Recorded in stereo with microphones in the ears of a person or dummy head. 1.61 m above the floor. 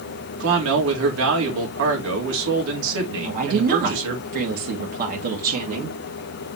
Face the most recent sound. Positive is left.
turn(degrees=-50)  # may be behind; listen again after turning